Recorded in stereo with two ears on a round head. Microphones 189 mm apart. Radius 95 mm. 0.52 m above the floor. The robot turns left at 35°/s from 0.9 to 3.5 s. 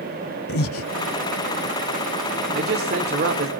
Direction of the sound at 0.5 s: 75° left (ahead or behind).